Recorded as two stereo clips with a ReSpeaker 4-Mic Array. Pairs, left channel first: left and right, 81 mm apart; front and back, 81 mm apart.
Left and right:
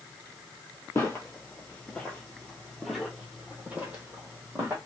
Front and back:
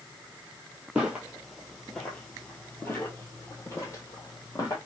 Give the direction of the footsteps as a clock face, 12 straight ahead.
8 o'clock.